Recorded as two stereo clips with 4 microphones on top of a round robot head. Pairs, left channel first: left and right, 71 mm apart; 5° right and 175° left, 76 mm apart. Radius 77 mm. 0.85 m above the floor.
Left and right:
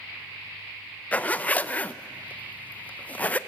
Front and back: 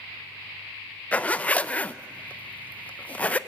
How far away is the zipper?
About 0.5 m.